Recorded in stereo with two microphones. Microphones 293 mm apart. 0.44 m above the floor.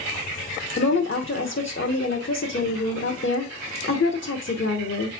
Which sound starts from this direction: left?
A woman speaking, at 0.8 s.